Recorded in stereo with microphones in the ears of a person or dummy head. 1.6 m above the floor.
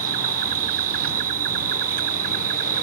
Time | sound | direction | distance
0.0 | an insect | 45° right (ahead or behind) | ?